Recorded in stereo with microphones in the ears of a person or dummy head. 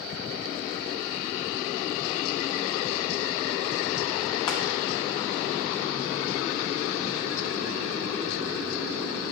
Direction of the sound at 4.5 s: 20° left (ahead or behind).